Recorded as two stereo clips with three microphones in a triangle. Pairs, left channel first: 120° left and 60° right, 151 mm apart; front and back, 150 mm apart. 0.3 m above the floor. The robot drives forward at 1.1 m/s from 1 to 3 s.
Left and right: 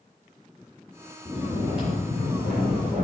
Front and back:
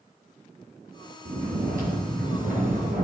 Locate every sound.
1.2 s snoring: 140° right, 4.5 m; by 3.0 s 155° right, 6 m